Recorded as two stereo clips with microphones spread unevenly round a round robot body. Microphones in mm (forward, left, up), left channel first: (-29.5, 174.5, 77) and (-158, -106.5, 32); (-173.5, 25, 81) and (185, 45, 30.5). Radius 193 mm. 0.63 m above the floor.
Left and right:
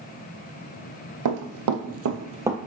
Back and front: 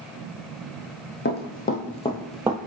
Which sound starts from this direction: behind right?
Running footsteps, at 1.2 s.